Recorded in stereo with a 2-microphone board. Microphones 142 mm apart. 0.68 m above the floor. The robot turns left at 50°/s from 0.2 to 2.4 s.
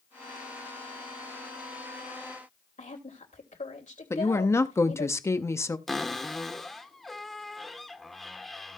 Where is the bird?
No bird in this recording.